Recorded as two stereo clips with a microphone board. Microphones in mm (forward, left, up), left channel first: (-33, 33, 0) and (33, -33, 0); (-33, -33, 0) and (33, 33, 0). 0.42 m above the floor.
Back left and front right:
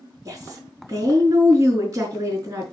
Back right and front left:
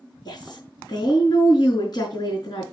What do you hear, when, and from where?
0.2 s a woman speaking: 95° right, 4.5 m